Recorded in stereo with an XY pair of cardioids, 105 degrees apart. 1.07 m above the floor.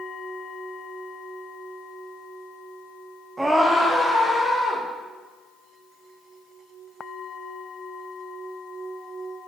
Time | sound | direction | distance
3.4 | a scream | 15° right | 0.6 m